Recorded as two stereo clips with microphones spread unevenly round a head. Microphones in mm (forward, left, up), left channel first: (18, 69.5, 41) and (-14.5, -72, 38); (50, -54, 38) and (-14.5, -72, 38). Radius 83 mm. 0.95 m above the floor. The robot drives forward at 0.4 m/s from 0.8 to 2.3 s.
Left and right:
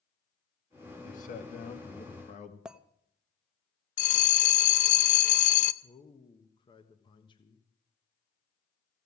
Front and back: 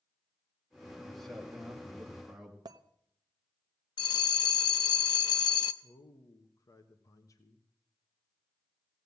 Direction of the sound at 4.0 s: 35° left.